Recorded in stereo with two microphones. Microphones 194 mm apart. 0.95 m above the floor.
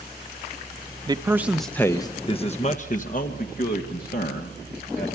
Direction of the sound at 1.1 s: 25° right (ahead or behind).